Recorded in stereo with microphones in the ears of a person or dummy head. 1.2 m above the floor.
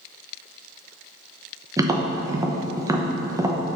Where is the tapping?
10° right (ahead or behind), 0.9 m.